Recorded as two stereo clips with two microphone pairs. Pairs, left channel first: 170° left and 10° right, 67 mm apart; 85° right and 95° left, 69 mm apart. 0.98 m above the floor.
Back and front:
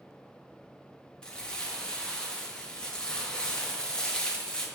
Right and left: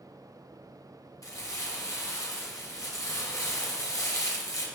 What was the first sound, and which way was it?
Crumpling, 115° right.